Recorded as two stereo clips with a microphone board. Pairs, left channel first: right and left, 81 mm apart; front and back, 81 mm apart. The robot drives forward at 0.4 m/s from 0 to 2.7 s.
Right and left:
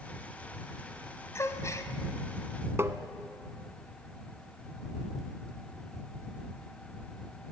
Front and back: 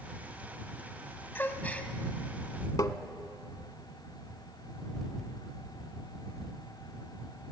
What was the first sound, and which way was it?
A gasp, 55° right.